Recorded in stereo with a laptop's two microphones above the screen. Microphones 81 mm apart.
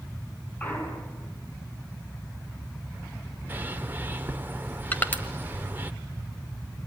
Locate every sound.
0.6 s a clunk: 20° left (ahead or behind), 6.5 m
3.5 s a bird: 25° right (ahead or behind), 1.1 m
4.9 s crushing: 20° left (ahead or behind), 1.5 m